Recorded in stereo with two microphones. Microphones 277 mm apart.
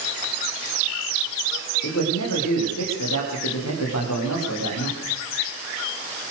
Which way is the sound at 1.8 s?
75° left (ahead or behind).